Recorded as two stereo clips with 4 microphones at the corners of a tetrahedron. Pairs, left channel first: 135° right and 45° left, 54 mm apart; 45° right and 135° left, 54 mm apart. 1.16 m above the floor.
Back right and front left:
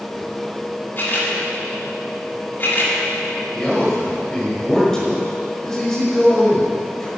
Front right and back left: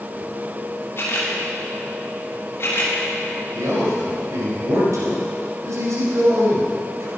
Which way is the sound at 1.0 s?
85° right.